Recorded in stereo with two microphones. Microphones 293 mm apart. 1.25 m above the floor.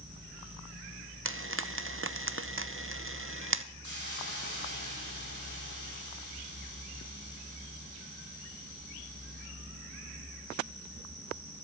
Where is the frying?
45° right (ahead or behind), 0.7 m.